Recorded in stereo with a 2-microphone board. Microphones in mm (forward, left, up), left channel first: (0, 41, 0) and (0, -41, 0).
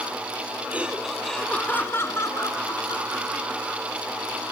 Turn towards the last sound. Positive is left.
turn(degrees=60)  # may be behind; listen again after turning